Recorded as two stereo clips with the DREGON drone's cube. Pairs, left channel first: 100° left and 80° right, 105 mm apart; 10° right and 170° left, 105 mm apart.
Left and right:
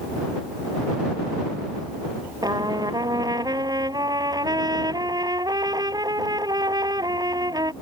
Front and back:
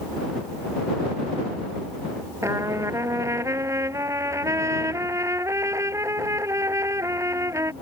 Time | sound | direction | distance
2.4 | a trumpet | 130° right | ?